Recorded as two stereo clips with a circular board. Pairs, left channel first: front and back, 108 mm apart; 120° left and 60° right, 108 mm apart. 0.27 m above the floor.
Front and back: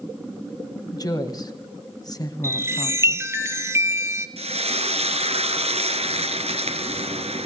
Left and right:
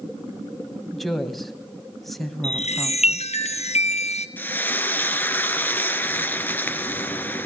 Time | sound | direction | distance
0.9 | a woman speaking | 35° left | 1.9 m
2.4 | a chime | 115° left | 1.5 m
4.4 | frying | 165° right | 1.6 m